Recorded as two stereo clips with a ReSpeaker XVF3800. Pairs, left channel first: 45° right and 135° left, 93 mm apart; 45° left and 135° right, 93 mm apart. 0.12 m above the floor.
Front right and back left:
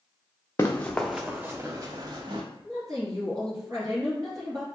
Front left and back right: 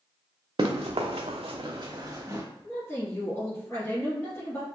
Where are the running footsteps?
105° right, 0.7 m; by 2.4 s 170° left, 1.1 m.